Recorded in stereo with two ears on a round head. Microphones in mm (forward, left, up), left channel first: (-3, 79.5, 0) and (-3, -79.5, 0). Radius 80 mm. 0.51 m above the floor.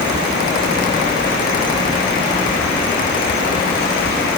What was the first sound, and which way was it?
Only background noise.